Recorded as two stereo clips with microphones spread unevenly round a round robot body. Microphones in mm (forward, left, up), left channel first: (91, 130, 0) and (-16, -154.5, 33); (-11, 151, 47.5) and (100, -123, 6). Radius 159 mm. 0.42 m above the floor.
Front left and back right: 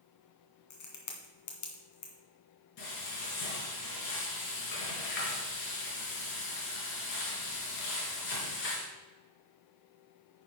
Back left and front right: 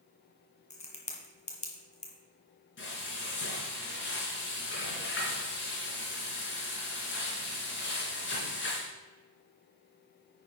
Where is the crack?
45° left, 2 m.